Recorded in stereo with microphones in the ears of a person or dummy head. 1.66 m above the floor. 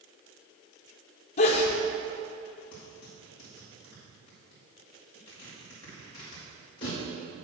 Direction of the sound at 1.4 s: 35° left (ahead or behind).